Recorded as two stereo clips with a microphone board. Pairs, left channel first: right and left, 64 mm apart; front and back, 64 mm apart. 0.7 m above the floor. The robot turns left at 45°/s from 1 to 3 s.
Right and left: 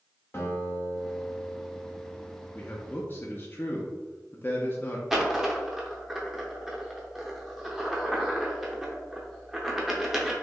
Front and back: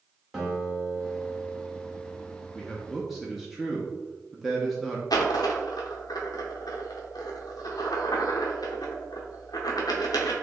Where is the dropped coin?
5° left, 0.6 m.